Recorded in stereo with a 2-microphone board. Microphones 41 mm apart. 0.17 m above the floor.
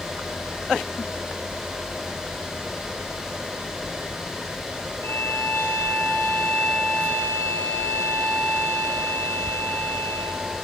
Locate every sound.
5.0 s a violin: 60° left (ahead or behind), 1.3 m